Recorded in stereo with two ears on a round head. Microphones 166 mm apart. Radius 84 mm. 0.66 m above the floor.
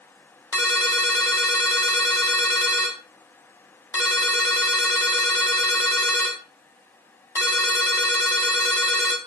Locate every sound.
0.5 s a ringtone: 15° left (ahead or behind), 0.8 m